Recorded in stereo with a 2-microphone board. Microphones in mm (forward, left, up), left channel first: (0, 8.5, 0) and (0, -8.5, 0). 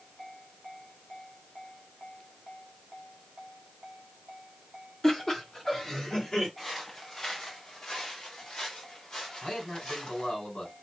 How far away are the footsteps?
About 2.5 m.